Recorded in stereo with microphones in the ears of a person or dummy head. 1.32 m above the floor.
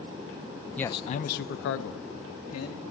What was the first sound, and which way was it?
A man speaking, 5° left (ahead or behind).